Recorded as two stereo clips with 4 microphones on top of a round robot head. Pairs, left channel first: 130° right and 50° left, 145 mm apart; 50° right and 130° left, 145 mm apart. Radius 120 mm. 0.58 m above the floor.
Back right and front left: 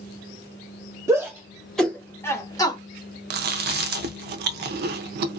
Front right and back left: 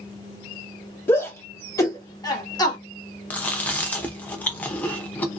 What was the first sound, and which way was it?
A shout, 5° left.